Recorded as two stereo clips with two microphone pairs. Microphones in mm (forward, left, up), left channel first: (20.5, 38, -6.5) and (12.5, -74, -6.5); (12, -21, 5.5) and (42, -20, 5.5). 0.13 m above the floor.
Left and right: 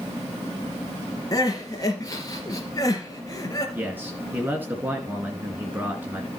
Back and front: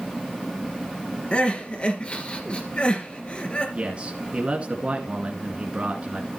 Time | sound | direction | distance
1.3 | crying | 140° left | 3 m
3.8 | a man speaking | 30° right | 2 m